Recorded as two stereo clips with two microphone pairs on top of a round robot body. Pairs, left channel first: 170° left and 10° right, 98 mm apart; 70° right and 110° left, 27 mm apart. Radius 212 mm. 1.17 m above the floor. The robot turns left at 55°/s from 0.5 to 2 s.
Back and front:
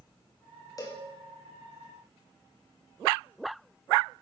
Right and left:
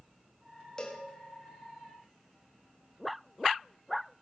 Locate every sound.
0.8 s a cowbell: 135° right, 1.6 m; by 1.1 s 150° right, 1.6 m